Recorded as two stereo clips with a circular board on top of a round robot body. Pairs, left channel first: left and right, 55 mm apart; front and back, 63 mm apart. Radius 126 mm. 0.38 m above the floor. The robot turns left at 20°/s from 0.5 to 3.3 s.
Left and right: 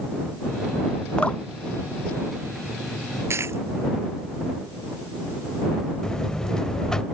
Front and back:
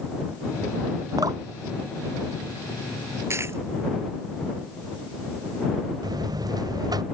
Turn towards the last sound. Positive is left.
turn(degrees=170)